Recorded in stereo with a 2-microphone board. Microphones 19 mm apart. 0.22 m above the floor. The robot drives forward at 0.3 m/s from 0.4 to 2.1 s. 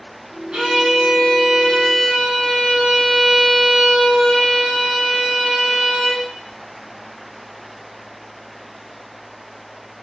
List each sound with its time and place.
0.5 s a violin: 50° right (ahead or behind), 0.9 m; by 6.3 s 35° right (ahead or behind), 1.1 m